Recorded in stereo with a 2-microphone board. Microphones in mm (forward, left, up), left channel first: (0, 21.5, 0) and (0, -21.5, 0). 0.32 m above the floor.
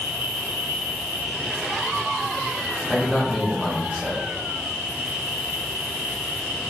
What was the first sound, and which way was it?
An insect, 75° right (ahead or behind).